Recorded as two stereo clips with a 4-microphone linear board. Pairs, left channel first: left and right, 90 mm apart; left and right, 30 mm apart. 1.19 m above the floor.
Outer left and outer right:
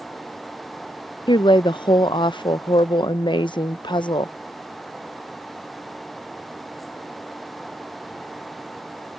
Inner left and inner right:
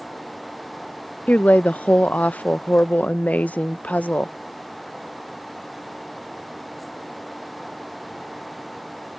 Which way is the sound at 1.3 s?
60° left (ahead or behind).